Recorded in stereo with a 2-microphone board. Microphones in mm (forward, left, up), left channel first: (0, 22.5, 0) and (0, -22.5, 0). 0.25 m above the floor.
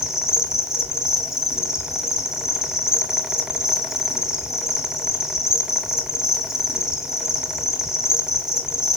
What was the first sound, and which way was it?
An insect, 10° right (ahead or behind).